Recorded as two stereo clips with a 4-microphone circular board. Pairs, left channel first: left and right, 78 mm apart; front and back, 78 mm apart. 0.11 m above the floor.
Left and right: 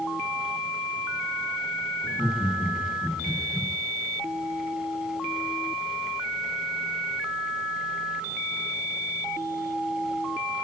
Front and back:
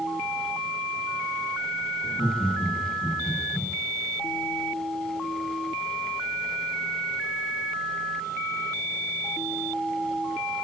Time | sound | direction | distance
2.0 | laughter | 15° left | 8 m